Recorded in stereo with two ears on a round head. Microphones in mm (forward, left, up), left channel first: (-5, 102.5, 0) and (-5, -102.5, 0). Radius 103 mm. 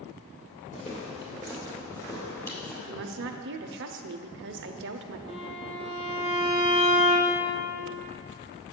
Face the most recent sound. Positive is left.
turn(degrees=-35)  # may be behind; listen again after turning